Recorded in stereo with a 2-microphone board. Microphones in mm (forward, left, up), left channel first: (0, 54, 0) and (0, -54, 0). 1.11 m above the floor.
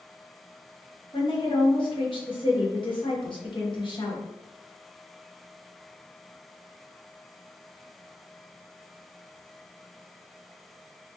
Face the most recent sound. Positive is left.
turn(degrees=50)  # may be behind; listen again after turning